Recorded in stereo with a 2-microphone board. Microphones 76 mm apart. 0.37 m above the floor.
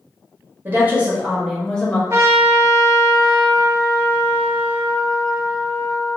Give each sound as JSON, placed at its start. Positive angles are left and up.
{"t": 0.7, "sound": "a woman speaking", "side_deg": -30, "distance_m": 1.1}
{"t": 2.1, "sound": "a trumpet", "side_deg": -35, "distance_m": 0.6}